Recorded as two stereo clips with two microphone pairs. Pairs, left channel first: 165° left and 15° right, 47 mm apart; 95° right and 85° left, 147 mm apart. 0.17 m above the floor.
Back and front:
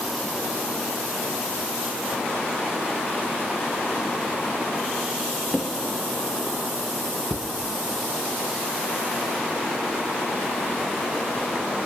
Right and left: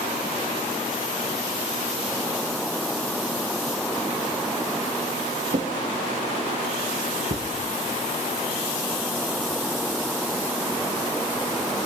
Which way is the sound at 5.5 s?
100° left.